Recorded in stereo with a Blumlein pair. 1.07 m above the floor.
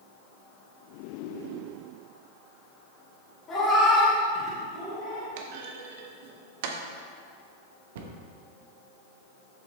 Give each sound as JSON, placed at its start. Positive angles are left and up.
{"t": 3.5, "sound": "a cat meowing", "azimuth_deg": 20, "distance_m": 2.0}
{"t": 5.4, "sound": "a clunk", "azimuth_deg": -50, "distance_m": 0.8}
{"t": 8.0, "sound": "a cupboard door", "azimuth_deg": -55, "distance_m": 0.8}